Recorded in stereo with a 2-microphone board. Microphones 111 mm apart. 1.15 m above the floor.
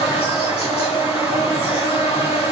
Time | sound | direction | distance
0.0 | an insect | 70° left (ahead or behind) | 1.8 m